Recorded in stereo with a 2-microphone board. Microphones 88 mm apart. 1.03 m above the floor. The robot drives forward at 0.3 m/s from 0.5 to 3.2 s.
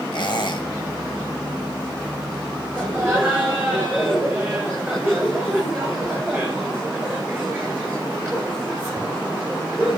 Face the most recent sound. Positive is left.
turn(degrees=-10)  # may be behind; listen again after turning